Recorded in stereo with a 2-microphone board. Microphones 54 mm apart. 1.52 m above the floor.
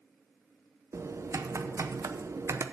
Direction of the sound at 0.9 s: 65° right (ahead or behind).